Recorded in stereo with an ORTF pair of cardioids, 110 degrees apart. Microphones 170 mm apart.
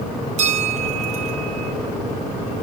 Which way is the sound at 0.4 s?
45° right.